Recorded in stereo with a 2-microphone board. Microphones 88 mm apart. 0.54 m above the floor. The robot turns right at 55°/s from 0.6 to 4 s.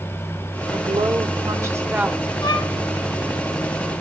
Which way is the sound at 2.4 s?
55° left (ahead or behind).